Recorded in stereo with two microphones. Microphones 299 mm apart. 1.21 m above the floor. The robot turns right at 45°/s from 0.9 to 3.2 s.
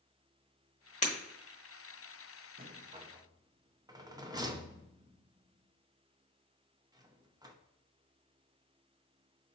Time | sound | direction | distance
1.0 | breaking glass | 25° left (ahead or behind) | 1.1 m
2.6 | a rattle | 30° right (ahead or behind) | 0.5 m